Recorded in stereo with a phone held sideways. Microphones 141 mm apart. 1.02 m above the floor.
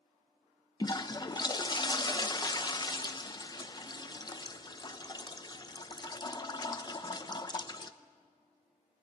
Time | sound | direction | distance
0.8 | a toilet flushing | 30° left (ahead or behind) | 1.0 m